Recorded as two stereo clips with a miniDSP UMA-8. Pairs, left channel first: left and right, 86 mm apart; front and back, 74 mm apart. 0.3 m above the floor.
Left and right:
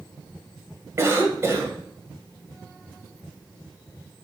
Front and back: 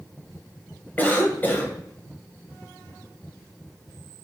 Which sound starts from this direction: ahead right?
A cough, at 1.0 s.